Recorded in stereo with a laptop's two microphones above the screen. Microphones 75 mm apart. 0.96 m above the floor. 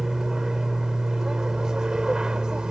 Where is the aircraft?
5° right (ahead or behind); by 2.7 s 10° right (ahead or behind).